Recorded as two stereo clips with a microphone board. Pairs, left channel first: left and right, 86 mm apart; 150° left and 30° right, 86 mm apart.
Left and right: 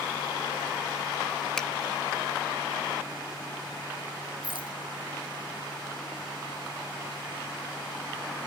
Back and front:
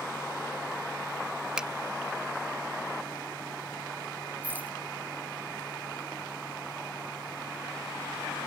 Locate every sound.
1.6 s a finger snap: 25° left
4.4 s a rattle: 100° right